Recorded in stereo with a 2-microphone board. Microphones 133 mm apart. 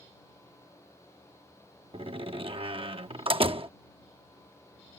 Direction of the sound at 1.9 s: 40° right (ahead or behind).